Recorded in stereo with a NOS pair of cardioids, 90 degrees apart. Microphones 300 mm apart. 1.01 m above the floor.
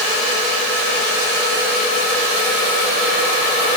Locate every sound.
Only background noise.